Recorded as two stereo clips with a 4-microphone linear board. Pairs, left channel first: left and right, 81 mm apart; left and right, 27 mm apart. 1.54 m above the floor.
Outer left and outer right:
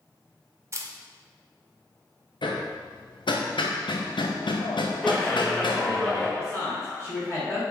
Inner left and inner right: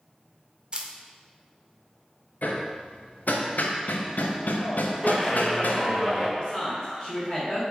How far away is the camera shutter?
About 0.5 m.